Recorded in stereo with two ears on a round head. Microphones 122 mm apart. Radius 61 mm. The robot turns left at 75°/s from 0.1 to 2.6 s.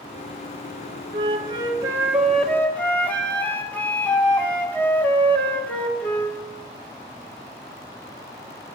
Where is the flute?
90° right, 1.4 m; by 6.4 s 160° left, 1.4 m.